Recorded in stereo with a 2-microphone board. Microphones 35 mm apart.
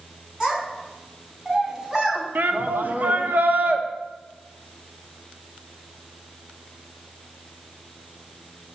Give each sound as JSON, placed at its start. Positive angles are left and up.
{"t": 0.4, "sound": "a child speaking", "side_deg": -5, "distance_m": 5.5}
{"t": 2.4, "sound": "a shout", "side_deg": -65, "distance_m": 1.6}